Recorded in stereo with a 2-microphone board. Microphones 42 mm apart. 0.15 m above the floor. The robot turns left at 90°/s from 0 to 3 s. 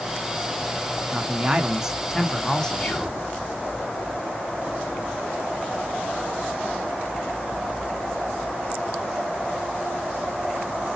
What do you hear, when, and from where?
1.1 s a man speaking: 25° right (ahead or behind), 1.1 m; by 2.9 s 20° left (ahead or behind), 1.1 m
2.8 s whispering: 5° left (ahead or behind), 1.2 m; by 3.2 s centre (ahead or behind), 1.2 m